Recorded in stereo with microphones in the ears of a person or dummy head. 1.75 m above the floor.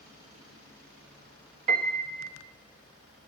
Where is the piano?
45° right (ahead or behind), 1.6 m.